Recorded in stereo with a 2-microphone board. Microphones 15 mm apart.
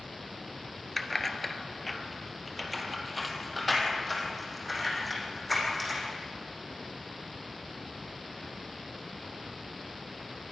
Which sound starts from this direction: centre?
Keys jangling, at 1.0 s.